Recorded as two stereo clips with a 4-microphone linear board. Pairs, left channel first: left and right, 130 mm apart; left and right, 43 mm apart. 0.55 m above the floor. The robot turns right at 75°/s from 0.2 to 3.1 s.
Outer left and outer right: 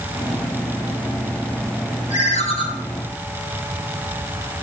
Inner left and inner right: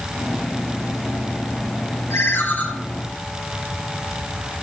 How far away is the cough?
I don't hear a cough.